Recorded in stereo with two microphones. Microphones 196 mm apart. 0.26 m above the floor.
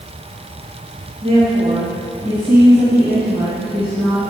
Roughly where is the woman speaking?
Right.